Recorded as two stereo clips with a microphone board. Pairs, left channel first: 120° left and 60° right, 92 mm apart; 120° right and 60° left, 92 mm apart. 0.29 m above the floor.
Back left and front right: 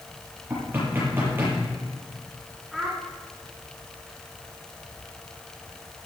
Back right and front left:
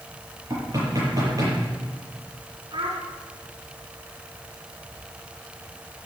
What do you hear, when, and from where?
0.5 s knocking: 10° left, 7.5 m
2.7 s a child speaking: 30° left, 3 m